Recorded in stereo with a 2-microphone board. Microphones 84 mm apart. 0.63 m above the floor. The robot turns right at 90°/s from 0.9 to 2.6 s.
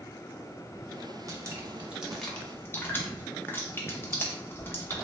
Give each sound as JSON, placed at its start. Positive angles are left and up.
{"t": 1.3, "sound": "dripping", "side_deg": -40, "distance_m": 0.5}